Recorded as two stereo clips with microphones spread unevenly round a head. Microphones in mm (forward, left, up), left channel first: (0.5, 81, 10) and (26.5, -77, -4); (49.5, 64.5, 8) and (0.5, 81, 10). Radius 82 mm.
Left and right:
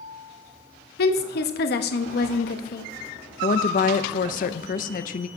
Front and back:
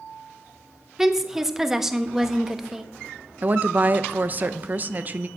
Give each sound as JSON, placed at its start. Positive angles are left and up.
{"t": 1.0, "sound": "a woman speaking", "azimuth_deg": 80, "distance_m": 1.1}
{"t": 3.4, "sound": "a woman speaking", "azimuth_deg": 120, "distance_m": 0.5}